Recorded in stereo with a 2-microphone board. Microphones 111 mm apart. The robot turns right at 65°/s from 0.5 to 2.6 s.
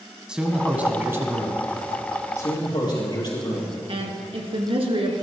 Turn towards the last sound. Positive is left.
turn(degrees=-60)  # may be behind; listen again after turning